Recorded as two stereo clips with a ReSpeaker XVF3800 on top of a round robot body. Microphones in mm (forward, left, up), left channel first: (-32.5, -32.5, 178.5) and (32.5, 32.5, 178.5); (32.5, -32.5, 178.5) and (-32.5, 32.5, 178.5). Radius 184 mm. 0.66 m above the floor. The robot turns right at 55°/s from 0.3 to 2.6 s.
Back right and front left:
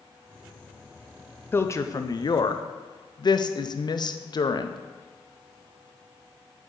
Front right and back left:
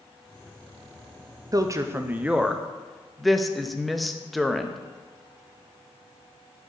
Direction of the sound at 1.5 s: 165° left.